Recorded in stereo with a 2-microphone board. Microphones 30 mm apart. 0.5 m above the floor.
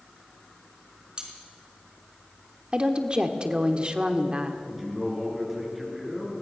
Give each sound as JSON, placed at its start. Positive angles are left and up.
{"t": 1.2, "sound": "cutlery clinking", "side_deg": -30, "distance_m": 4.5}
{"t": 2.7, "sound": "a woman speaking", "side_deg": -35, "distance_m": 1.3}
{"t": 4.7, "sound": "a man speaking", "side_deg": -5, "distance_m": 6.0}